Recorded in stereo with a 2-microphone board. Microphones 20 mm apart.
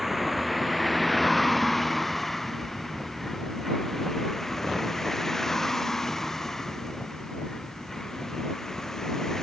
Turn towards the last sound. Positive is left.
turn(degrees=25)  # may be behind; listen again after turning